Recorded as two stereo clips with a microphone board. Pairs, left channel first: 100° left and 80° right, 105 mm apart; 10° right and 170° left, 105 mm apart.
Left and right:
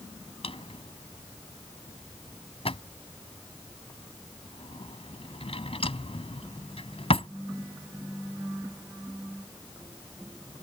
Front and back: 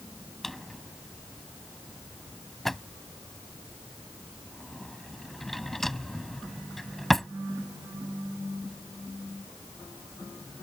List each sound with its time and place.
0.4 s a drawer: 75° left